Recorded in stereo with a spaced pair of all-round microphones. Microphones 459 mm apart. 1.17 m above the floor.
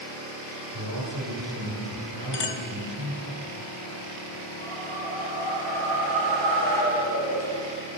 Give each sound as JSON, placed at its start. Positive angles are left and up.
{"t": 0.7, "sound": "a man speaking", "side_deg": -60, "distance_m": 4.5}
{"t": 2.3, "sound": "a clink", "side_deg": 60, "distance_m": 0.7}
{"t": 4.6, "sound": "a whoosh", "side_deg": 30, "distance_m": 4.5}